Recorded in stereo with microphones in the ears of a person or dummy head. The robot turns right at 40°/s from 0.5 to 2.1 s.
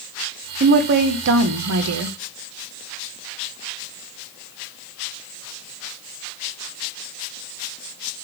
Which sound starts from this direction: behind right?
A woman speaking, at 0.6 s.